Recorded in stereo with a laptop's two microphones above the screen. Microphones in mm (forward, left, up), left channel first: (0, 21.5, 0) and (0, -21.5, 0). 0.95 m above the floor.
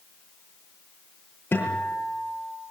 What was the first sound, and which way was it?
A guitar, 45° left (ahead or behind).